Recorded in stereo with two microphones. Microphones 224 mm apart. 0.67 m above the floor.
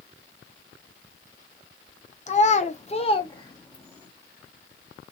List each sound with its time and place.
2.3 s a child speaking: 30° left (ahead or behind), 0.8 m; by 4.1 s 10° left (ahead or behind), 1.0 m